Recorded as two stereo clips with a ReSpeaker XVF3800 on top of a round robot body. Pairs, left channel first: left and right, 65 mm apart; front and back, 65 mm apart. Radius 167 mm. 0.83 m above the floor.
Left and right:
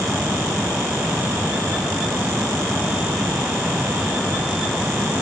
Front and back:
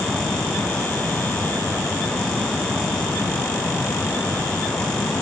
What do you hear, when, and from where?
Only background noise.